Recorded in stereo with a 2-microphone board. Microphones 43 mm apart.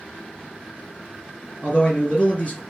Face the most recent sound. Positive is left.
turn(degrees=40)  # may be behind; listen again after turning